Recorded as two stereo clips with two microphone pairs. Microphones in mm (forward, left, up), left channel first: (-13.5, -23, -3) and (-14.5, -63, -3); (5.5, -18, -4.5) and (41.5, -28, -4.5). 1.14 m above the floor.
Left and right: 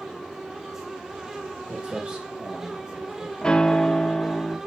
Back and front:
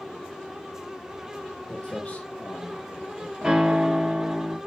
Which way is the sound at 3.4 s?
30° left.